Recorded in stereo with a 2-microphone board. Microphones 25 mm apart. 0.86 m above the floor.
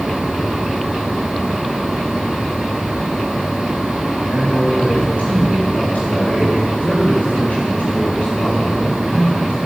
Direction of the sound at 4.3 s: 70° left (ahead or behind).